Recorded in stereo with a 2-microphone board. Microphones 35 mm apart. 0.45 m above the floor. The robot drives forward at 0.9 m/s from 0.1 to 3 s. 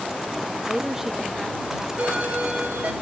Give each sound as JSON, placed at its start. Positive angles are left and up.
{"t": 0.7, "sound": "a woman speaking", "side_deg": -10, "distance_m": 0.7}
{"t": 2.0, "sound": "a doorbell", "side_deg": -50, "distance_m": 3.5}